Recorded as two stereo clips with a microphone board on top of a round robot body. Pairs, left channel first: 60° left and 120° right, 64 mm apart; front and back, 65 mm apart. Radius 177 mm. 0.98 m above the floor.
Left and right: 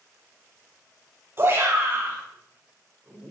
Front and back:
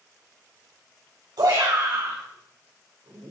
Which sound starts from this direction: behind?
A shout, at 1.4 s.